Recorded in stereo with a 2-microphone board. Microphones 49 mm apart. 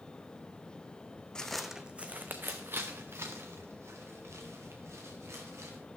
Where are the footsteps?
15° left (ahead or behind), 0.7 m; by 5.8 s 70° right (ahead or behind), 4 m.